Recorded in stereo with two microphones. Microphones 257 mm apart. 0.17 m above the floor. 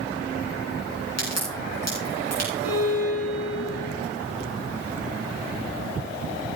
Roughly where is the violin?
Left.